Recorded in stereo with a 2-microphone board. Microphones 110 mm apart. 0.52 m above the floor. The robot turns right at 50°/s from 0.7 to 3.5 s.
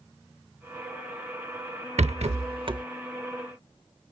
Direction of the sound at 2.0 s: 85° right.